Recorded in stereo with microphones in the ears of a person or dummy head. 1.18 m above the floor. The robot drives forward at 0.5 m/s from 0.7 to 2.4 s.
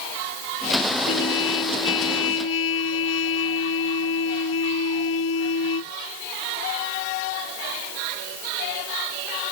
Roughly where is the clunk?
No clunk in this recording.